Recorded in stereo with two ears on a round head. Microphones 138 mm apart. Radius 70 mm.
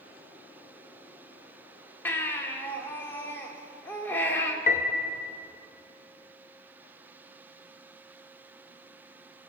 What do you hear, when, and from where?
2.0 s a baby crying: 15° left (ahead or behind), 1.8 m
4.7 s a piano: 50° left (ahead or behind), 1.0 m